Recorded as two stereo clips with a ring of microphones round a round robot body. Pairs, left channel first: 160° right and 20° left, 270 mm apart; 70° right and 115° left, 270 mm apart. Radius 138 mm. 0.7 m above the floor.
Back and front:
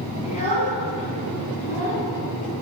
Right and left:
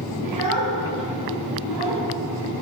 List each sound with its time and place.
0.2 s a child speaking: 135° left, 5.5 m